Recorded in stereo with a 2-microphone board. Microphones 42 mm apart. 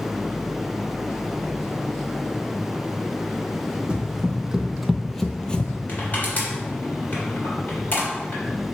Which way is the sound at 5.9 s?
45° left (ahead or behind).